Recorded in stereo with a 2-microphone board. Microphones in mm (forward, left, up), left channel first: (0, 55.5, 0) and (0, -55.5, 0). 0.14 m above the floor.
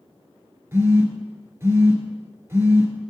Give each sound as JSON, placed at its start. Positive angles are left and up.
{"t": 0.7, "sound": "a phone buzzing", "side_deg": -20, "distance_m": 1.1}